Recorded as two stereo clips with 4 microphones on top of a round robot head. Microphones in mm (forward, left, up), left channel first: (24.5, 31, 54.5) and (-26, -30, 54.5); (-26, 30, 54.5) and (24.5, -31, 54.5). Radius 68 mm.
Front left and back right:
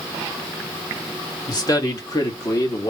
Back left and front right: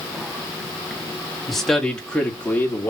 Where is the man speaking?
40° left, 1.7 m; by 2.9 s 75° left, 1.7 m.